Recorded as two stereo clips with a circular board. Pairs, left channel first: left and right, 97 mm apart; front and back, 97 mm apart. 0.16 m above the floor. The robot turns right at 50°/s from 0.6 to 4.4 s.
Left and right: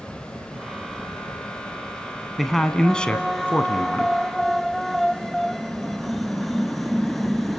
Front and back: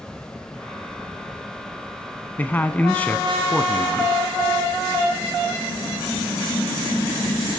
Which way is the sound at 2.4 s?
Straight ahead.